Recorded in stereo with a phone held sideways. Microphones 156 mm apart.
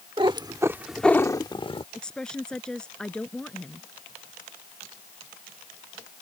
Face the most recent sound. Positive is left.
turn(degrees=5)  # may be behind; listen again after turning